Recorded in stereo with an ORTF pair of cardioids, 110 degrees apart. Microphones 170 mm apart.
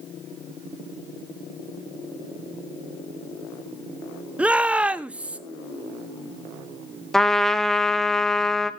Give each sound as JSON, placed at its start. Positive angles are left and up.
{"t": 4.4, "sound": "a shout", "azimuth_deg": -5, "distance_m": 1.0}
{"t": 7.1, "sound": "a trumpet", "azimuth_deg": 0, "distance_m": 1.2}